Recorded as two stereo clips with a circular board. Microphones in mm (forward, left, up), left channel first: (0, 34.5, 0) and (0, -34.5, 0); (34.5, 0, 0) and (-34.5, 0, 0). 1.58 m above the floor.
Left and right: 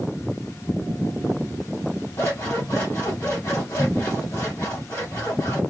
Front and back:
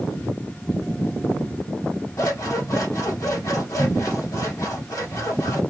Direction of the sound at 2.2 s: 40° left.